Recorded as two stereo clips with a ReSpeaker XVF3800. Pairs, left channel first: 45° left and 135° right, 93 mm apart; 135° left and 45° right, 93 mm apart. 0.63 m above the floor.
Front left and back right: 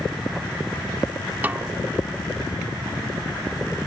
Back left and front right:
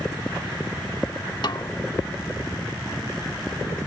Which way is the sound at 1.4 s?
160° left.